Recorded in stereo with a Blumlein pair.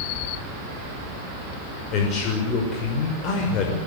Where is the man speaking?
35° left, 6 m.